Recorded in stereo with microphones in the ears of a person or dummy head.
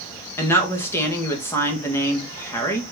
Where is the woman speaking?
15° left (ahead or behind), 1.6 m.